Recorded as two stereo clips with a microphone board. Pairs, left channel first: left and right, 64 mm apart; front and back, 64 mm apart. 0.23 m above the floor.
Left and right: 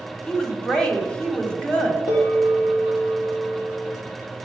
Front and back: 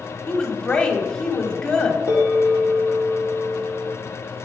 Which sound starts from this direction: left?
A bell, at 2.1 s.